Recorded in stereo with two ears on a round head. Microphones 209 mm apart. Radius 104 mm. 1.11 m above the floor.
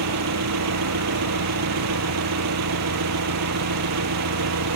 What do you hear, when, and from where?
0.0 s an engine running: 85° right